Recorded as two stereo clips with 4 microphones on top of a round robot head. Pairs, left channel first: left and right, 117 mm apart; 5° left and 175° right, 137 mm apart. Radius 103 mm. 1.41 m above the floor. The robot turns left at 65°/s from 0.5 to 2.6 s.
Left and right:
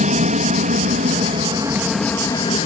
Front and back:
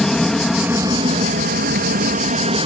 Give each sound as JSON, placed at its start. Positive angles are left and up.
{"t": 0.0, "sound": "an aircraft", "azimuth_deg": -85}